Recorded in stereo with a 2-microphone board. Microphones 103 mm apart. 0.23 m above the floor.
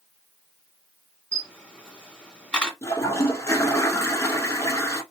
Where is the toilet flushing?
30° left (ahead or behind), 0.5 m.